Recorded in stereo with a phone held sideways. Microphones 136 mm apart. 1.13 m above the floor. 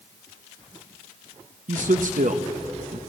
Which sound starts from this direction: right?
A man speaking, at 1.7 s.